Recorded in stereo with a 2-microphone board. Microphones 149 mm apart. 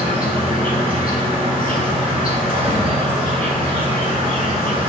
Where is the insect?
75° left (ahead or behind), 1.5 m.